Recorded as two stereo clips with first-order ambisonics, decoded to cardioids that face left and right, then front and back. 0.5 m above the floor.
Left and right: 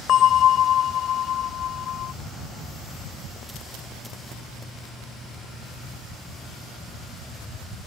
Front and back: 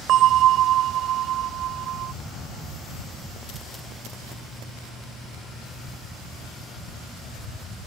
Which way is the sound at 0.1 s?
140° left.